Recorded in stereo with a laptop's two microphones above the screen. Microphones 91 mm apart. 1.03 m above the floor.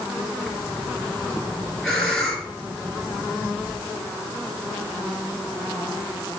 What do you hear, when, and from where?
0.5 s breathing: 5° left (ahead or behind), 4 m